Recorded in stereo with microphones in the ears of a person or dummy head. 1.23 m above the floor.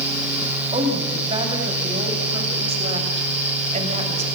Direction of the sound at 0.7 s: 30° right (ahead or behind).